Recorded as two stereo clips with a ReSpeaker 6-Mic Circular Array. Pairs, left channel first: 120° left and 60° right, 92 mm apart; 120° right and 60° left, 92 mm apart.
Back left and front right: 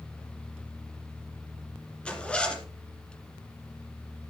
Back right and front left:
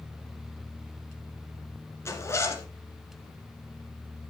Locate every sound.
2.0 s a zipper: 165° right, 1.7 m